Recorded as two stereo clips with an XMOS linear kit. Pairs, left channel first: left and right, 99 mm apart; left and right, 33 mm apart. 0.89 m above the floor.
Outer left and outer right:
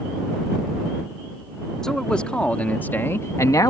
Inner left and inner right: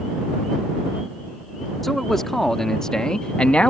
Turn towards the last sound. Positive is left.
turn(degrees=40)  # may be behind; listen again after turning